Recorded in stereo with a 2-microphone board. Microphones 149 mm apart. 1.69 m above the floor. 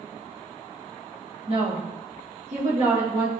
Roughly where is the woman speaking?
Right.